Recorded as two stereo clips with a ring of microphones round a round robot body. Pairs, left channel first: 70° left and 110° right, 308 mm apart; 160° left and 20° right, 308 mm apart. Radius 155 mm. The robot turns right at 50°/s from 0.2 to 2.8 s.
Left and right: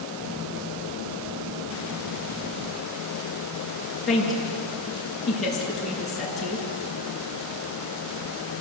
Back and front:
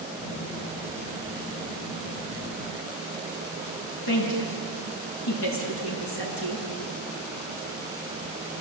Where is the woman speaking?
155° left, 7.5 m.